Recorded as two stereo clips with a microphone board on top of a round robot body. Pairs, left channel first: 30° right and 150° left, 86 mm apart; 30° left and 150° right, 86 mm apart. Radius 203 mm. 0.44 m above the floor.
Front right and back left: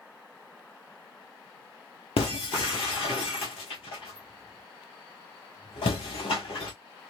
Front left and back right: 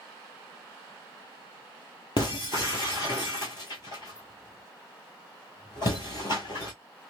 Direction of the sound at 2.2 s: 10° right.